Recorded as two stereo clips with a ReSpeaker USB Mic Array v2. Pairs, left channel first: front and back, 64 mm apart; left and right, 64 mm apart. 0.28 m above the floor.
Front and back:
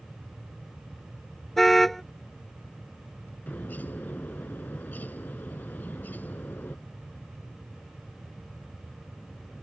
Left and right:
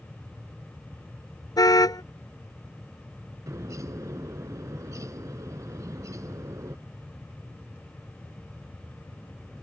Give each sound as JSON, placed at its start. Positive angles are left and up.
{"t": 1.6, "sound": "a car horn", "azimuth_deg": 85}
{"t": 3.5, "sound": "a bird", "azimuth_deg": -60}